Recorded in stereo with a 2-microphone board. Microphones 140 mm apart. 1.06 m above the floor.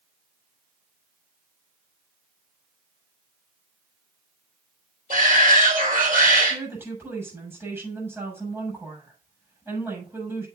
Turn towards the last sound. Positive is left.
turn(degrees=-15)  # may be behind; listen again after turning